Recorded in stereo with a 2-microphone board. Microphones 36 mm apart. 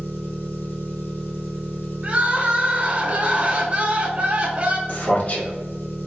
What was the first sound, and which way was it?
An engine running, 70° left (ahead or behind).